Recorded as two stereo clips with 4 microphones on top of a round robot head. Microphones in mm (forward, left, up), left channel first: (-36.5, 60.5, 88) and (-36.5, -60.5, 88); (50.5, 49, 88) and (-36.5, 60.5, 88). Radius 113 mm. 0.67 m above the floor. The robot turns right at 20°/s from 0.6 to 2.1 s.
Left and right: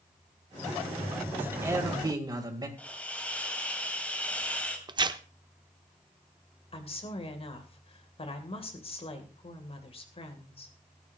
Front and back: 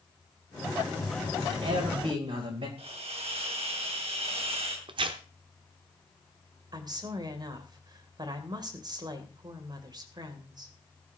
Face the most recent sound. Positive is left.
turn(degrees=130)